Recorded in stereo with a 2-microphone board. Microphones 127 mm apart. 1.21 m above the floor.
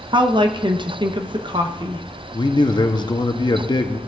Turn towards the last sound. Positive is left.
turn(degrees=35)  # may be behind; listen again after turning